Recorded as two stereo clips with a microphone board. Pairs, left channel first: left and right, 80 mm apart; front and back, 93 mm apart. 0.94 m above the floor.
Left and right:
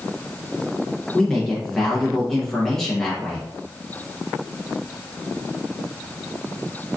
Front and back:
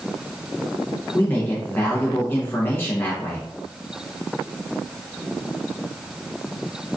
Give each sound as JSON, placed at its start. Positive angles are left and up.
{"t": 1.1, "sound": "a man speaking", "azimuth_deg": 15, "distance_m": 0.9}